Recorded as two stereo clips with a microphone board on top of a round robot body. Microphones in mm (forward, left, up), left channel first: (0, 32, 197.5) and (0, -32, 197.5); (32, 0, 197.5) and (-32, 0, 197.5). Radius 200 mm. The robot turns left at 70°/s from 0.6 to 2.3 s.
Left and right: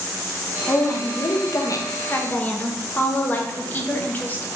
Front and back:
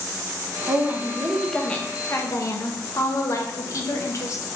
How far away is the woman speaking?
About 0.8 m.